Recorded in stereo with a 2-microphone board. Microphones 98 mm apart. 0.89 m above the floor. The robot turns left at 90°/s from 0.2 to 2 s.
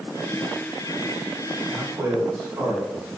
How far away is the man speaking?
About 1.9 m.